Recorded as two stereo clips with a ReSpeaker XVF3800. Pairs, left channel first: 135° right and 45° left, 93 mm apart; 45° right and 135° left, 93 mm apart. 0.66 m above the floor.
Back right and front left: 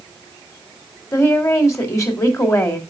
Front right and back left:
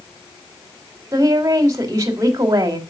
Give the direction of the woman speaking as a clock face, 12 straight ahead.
6 o'clock.